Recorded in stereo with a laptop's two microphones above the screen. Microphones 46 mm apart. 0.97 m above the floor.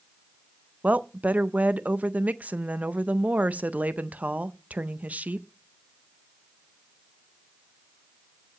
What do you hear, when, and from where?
0.8 s a woman speaking: 35° right (ahead or behind), 0.5 m